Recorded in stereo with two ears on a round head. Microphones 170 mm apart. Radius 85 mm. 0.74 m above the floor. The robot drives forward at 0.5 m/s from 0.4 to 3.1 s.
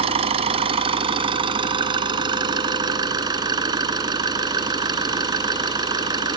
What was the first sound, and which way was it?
An engine running, 35° right (ahead or behind).